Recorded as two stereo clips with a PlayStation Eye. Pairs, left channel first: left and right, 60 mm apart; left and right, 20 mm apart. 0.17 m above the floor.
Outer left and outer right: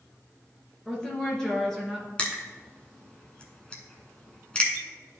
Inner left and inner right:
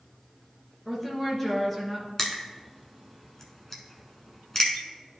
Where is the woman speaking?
15° left (ahead or behind), 2.5 m; by 2.1 s 5° left (ahead or behind), 2 m.